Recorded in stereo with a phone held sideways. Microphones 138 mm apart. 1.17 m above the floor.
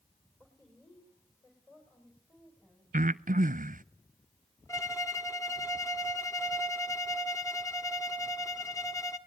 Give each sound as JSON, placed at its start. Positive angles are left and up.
{"t": 0.4, "sound": "a woman speaking", "side_deg": 25, "distance_m": 5.5}
{"t": 2.9, "sound": "breathing", "side_deg": -75, "distance_m": 0.5}
{"t": 4.7, "sound": "a violin", "side_deg": 25, "distance_m": 1.7}